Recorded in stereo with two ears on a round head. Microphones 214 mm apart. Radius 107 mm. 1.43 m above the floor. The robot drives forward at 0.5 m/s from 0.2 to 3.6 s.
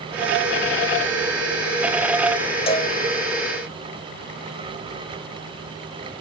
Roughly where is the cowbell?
Left.